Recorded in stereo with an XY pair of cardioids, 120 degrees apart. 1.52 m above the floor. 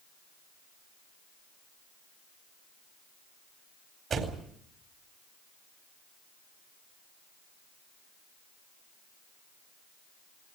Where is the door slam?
40° right, 4 m.